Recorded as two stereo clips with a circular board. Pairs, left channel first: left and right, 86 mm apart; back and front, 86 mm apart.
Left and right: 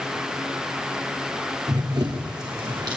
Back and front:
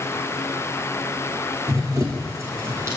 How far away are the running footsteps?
About 3.5 m.